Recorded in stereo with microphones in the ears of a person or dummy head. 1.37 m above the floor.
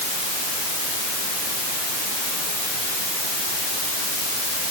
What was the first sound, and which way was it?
Only background noise.